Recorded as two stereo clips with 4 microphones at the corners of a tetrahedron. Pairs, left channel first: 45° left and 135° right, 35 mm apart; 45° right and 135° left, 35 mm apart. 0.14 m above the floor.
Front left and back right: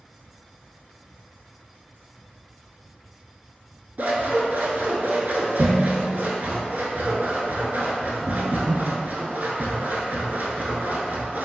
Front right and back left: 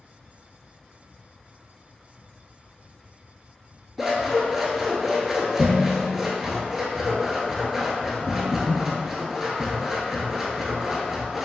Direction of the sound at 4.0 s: 145° right.